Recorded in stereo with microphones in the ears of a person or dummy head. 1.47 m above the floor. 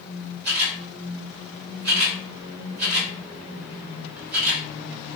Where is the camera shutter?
60° right (ahead or behind), 1.5 m.